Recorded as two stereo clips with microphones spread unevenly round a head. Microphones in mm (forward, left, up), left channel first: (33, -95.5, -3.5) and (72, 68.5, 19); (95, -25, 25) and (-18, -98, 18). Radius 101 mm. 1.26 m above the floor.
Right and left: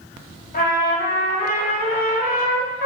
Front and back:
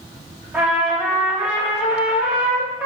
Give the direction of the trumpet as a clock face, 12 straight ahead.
2 o'clock.